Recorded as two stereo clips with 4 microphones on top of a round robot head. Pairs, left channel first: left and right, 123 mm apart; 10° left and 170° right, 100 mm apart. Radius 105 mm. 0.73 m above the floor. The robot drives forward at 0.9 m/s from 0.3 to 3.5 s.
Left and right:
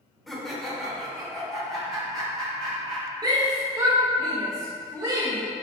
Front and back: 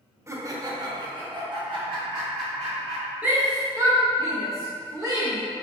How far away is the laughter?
About 1.0 m.